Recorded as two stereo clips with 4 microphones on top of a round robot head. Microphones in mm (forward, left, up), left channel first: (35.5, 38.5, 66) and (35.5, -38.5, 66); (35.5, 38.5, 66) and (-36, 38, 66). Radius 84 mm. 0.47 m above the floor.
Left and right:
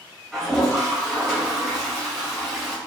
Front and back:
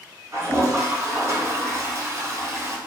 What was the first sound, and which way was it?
A toilet flushing, straight behind.